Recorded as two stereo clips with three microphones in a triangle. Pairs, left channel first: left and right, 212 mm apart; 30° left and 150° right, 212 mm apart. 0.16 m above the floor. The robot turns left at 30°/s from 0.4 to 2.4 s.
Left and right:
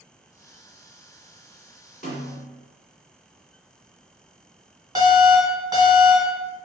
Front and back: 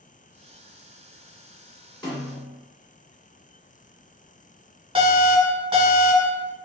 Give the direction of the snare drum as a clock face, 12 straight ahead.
9 o'clock.